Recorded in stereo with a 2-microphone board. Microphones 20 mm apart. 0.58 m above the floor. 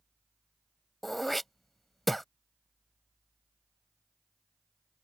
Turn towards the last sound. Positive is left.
turn(degrees=10)  # may be behind; listen again after turning